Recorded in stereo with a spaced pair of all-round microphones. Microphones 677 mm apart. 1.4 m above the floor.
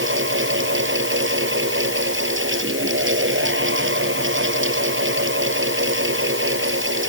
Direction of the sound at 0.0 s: 15° right (ahead or behind).